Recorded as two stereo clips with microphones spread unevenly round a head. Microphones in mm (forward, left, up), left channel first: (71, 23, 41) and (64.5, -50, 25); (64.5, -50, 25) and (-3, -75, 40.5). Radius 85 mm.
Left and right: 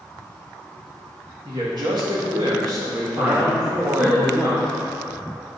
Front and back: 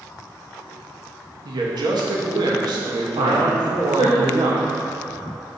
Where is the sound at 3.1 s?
160° right, 1.0 m.